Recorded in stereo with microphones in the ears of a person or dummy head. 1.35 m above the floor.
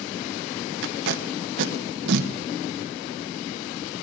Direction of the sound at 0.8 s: 75° right (ahead or behind).